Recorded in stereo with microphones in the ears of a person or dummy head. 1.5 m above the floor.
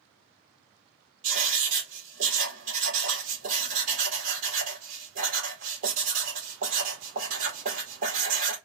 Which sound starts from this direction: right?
Writing, at 1.2 s.